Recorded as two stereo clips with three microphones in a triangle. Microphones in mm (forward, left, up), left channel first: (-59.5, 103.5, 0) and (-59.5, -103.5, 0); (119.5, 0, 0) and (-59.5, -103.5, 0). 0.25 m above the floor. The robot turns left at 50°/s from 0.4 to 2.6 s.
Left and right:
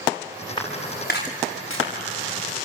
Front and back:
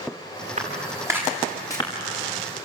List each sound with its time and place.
0.6 s footsteps: 160° left, 7.5 m; by 1.9 s 95° left, 7 m